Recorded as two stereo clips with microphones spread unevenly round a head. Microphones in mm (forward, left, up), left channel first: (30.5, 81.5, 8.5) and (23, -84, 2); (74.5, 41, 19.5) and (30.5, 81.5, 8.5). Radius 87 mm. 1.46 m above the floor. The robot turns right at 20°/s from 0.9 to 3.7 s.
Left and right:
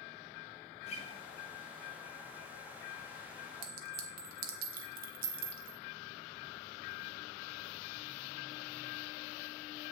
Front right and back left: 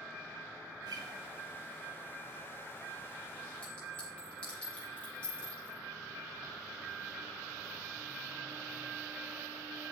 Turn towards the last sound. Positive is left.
turn(degrees=-100)